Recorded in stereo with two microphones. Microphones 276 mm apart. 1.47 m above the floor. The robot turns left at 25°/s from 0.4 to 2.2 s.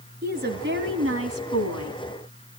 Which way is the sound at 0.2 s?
35° right.